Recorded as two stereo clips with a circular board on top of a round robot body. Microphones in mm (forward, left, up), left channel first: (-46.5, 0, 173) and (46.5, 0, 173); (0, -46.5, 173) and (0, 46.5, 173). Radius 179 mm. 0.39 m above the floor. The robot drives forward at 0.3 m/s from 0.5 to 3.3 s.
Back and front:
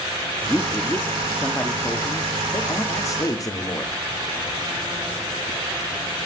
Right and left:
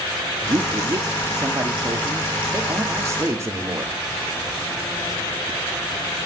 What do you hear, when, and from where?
0.5 s a man speaking: 110° left, 1.8 m; by 3.9 s 140° left, 2 m